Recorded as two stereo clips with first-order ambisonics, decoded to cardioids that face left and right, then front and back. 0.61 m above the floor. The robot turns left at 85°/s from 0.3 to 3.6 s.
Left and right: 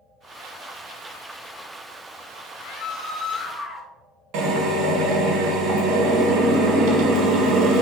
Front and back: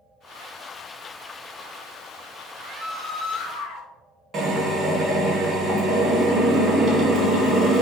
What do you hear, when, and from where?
2.5 s a scream: 110° left, 0.9 m; by 3.9 s 20° left, 0.9 m
4.3 s a drill: 120° right, 0.9 m